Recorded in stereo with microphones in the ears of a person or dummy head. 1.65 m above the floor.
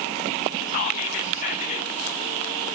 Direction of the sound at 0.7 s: 45° left (ahead or behind).